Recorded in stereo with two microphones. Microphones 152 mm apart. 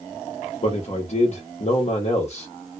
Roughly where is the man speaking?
Left.